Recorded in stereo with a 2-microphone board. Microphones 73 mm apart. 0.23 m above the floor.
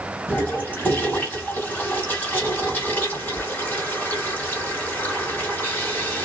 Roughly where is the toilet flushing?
Left.